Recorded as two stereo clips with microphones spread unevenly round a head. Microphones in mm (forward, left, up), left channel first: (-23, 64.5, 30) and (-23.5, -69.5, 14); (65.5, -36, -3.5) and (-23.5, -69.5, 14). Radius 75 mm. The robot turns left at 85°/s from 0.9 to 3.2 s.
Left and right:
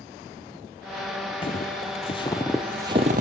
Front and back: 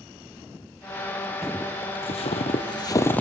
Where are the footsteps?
125° left, 2 m; by 3.2 s 60° right, 2.5 m.